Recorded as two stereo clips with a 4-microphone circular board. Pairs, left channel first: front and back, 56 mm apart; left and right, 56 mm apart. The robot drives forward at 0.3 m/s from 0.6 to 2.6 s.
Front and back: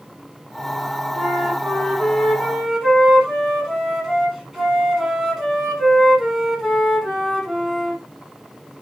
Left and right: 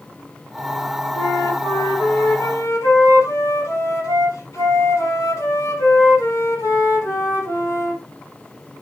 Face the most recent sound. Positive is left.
turn(degrees=100)